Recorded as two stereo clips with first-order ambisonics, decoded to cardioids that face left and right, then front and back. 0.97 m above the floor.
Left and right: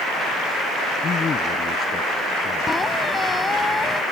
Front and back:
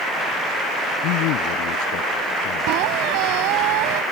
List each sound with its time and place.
1.0 s a man speaking: 20° left
2.7 s a squeak: 170° left